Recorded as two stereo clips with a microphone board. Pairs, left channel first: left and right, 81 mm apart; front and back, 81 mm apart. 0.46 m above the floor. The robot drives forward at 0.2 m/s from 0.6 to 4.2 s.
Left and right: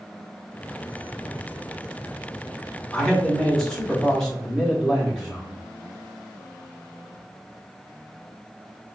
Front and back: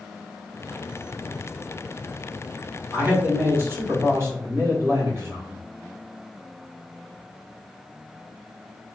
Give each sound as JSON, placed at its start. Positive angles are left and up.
{"t": 2.9, "sound": "a man speaking", "azimuth_deg": 165, "distance_m": 1.2}